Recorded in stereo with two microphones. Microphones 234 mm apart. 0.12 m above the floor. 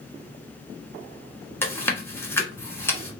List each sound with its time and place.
1.6 s chewing: 10° left (ahead or behind), 1.2 m